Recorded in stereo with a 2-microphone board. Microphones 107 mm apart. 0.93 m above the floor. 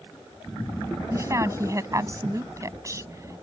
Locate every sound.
1.1 s a woman speaking: 30° right (ahead or behind)